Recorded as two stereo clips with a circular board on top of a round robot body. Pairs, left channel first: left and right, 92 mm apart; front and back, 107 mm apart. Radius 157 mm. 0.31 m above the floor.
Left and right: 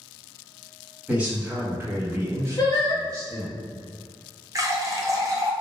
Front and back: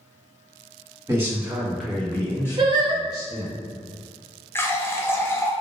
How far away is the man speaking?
About 1.2 m.